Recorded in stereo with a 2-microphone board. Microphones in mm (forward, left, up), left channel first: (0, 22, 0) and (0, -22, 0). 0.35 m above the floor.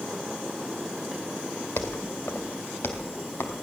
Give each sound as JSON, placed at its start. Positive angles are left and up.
{"t": 1.8, "sound": "footsteps", "side_deg": 75, "distance_m": 1.7}